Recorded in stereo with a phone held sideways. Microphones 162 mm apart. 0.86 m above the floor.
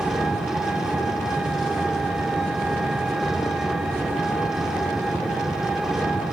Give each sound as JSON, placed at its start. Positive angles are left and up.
{"t": 0.0, "sound": "an engine running", "side_deg": -5, "distance_m": 2.0}